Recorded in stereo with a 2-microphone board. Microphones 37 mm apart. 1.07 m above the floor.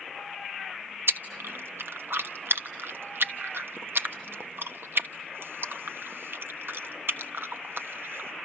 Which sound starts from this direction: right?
Chewing, at 1.1 s.